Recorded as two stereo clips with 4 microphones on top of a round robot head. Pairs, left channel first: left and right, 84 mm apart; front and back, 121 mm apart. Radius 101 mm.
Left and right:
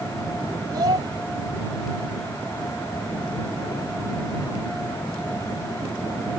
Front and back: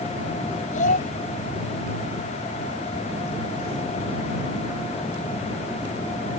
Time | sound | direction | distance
0.7 | a child speaking | 35° right | ?